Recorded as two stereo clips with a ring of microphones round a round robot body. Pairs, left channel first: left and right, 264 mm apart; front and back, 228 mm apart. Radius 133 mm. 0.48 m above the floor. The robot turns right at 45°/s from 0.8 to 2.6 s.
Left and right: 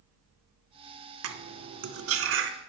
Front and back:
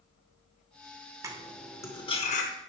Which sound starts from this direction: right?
Cutlery clinking, at 1.2 s.